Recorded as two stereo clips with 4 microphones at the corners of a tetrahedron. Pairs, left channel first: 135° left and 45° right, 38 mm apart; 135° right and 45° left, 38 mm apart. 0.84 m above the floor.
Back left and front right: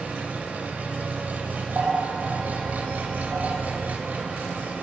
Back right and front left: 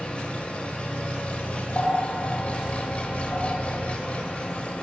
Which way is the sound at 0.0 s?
80° right.